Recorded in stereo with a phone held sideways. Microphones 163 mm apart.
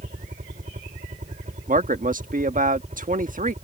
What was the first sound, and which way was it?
A helicopter, 55° right (ahead or behind).